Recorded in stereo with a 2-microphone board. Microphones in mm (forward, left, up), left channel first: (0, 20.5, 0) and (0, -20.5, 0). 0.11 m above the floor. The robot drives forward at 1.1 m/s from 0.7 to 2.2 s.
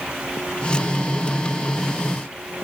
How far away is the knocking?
I don't hear knocking.